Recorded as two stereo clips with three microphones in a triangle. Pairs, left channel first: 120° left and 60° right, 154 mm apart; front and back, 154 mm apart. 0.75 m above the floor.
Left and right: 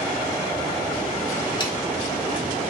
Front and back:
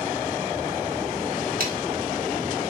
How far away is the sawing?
About 1.1 m.